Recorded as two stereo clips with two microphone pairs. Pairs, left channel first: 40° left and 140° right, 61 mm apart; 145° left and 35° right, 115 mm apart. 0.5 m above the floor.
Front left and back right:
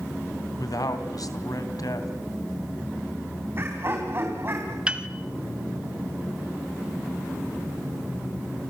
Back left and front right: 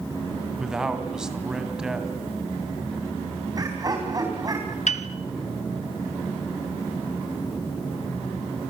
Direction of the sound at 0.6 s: 50° left.